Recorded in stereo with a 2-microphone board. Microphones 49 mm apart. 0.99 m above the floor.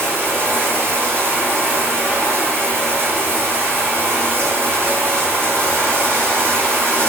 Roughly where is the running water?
Right.